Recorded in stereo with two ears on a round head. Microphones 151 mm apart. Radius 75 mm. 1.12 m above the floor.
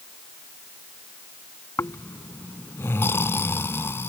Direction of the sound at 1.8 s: 15° left (ahead or behind).